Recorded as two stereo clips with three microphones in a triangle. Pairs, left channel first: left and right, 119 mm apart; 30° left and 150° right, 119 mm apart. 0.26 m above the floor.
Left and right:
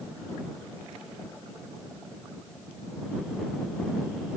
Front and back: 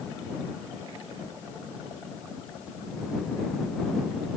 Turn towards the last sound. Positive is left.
No sound to turn to.